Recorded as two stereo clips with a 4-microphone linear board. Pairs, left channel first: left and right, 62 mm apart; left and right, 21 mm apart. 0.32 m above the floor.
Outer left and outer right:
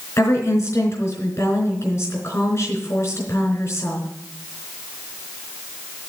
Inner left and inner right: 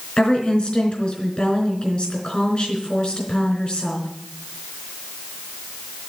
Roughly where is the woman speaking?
Left.